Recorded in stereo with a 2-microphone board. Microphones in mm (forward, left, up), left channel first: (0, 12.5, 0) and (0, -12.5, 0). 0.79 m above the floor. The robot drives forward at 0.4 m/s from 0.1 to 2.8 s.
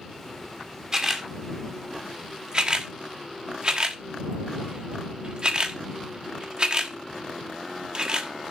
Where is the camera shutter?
25° right (ahead or behind), 1.8 m; by 8.5 s 40° right (ahead or behind), 1.2 m.